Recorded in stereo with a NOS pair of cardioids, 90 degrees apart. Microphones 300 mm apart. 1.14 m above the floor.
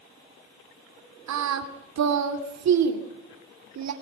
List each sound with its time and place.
1.3 s singing: 65° right, 2.5 m